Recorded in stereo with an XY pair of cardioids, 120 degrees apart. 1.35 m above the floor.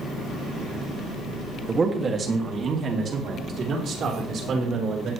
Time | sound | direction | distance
1.7 | a man speaking | 25° right | 2 m